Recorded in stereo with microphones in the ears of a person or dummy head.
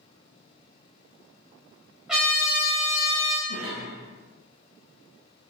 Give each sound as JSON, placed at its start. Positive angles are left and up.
{"t": 2.1, "sound": "a trumpet", "side_deg": -5, "distance_m": 0.8}
{"t": 3.5, "sound": "a cough", "side_deg": 55, "distance_m": 1.0}